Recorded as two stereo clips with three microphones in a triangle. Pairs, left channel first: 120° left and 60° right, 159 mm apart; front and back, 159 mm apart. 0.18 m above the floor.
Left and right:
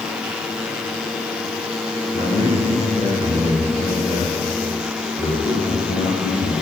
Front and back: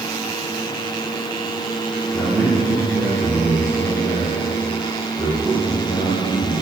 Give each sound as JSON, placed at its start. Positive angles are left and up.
{"t": 2.1, "sound": "a man speaking", "azimuth_deg": 65, "distance_m": 5.0}